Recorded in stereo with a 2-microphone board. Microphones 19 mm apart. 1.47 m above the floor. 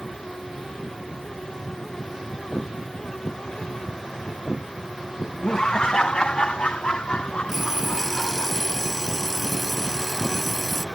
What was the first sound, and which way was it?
Laughter, 45° left (ahead or behind).